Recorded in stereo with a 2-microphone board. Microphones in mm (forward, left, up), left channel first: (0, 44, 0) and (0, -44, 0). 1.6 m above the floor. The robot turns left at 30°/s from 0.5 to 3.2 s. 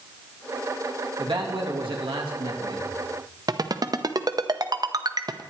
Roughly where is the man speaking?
Ahead right.